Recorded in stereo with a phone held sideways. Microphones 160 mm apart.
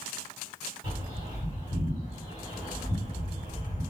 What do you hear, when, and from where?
0.8 s a bird: 35° right (ahead or behind), 1.5 m